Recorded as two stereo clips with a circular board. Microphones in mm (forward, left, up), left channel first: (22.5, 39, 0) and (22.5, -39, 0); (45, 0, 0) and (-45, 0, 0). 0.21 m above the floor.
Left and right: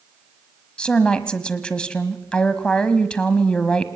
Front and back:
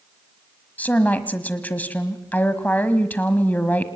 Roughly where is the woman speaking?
Ahead left.